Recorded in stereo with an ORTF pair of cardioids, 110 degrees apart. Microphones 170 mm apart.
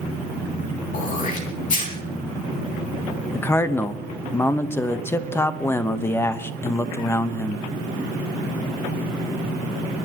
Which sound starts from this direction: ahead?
A man speaking, at 3.3 s.